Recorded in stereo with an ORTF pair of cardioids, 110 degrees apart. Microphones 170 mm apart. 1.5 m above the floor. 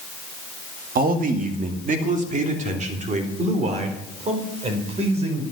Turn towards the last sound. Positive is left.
turn(degrees=-40)